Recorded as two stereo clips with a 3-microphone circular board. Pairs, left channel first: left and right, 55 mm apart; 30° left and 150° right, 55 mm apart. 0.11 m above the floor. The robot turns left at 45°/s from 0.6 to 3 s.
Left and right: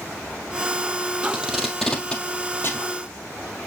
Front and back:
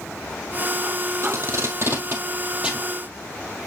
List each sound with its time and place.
1.2 s tape being pulled: 160° right, 1.6 m; by 2.9 s 130° left, 1.6 m